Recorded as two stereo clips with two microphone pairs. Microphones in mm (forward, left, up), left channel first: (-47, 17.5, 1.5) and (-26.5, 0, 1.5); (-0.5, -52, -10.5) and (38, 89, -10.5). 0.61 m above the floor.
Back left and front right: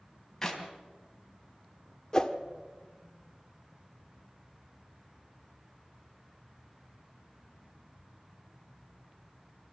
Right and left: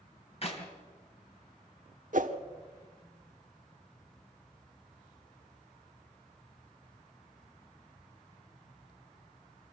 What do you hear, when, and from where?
0.4 s a clap: 150° right, 3 m
2.1 s a whoosh: 75° left, 1.3 m